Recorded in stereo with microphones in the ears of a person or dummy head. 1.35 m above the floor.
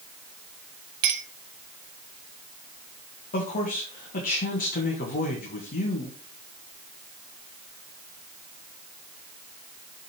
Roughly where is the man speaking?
Left.